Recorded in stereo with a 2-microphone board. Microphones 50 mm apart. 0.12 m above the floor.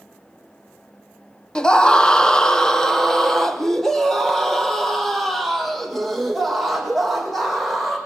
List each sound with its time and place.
1.6 s a scream: 20° left (ahead or behind), 1.1 m; by 8.0 s centre (ahead or behind), 6 m